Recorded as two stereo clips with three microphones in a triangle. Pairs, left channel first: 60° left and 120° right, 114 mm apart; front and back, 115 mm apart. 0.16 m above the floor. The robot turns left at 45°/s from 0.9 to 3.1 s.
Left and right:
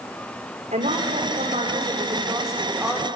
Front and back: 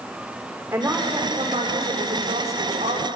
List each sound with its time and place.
0.7 s a woman speaking: 110° right, 8 m; by 3.0 s 155° left, 8 m